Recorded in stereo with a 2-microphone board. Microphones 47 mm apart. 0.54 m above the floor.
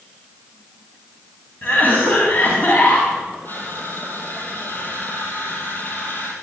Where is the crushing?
50° left (ahead or behind), 5 m.